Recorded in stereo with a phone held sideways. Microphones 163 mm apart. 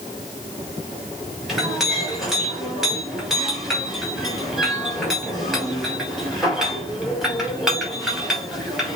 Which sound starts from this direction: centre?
A clink, at 1.5 s.